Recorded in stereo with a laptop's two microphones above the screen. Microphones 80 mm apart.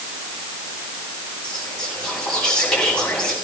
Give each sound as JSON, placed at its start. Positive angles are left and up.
{"t": 1.4, "sound": "whispering", "side_deg": 10, "distance_m": 6.5}